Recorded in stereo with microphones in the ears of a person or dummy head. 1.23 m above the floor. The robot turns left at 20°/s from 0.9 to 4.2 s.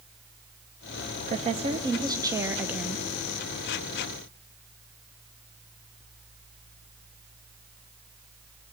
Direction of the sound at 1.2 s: 145° right.